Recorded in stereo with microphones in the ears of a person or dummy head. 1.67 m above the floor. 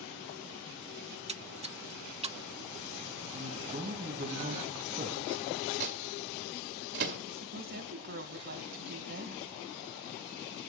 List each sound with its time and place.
1.1 s a splash: 30° right (ahead or behind), 0.5 m
3.3 s a man speaking: 40° right (ahead or behind), 3 m
5.8 s a microwave: 55° right (ahead or behind), 1.8 m
7.3 s a woman speaking: 60° right (ahead or behind), 1.8 m